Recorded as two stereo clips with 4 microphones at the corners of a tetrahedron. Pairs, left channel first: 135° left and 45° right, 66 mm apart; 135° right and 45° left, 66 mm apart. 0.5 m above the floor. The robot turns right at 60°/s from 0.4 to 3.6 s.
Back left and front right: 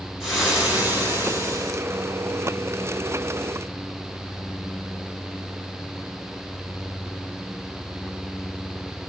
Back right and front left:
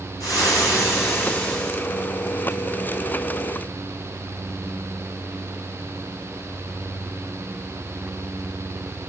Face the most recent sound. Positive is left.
turn(degrees=65)